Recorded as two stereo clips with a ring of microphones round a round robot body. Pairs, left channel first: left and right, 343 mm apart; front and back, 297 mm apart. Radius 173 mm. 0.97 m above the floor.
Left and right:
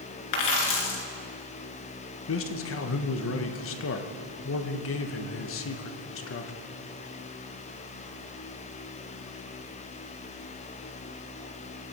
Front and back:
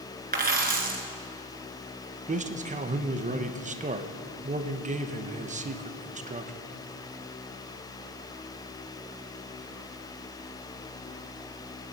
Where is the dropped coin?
120° left, 3 m.